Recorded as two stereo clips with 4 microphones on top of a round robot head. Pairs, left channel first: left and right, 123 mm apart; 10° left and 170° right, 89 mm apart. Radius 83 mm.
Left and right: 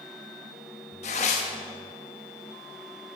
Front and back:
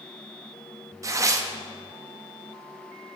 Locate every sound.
1.0 s tearing paper: 140° left, 0.8 m